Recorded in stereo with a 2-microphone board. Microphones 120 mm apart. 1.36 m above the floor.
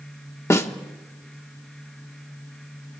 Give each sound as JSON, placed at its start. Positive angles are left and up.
{"t": 0.5, "sound": "a snare drum", "side_deg": 25, "distance_m": 1.2}